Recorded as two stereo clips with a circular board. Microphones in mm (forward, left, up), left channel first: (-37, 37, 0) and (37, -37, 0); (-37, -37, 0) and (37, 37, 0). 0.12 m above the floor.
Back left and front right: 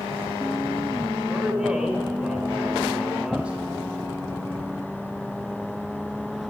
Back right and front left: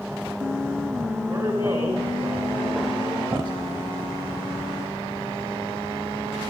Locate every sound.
1.3 s a man speaking: 30° left, 1.4 m